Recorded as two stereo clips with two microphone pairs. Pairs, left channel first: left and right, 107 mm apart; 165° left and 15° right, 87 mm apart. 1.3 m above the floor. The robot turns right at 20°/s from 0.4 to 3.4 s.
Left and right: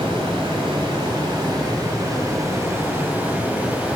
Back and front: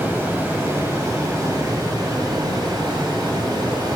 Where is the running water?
75° right, 1.8 m; by 4.0 s 15° right, 1.8 m.